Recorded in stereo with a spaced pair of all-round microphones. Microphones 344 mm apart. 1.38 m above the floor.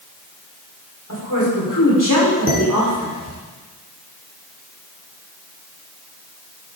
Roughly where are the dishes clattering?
Left.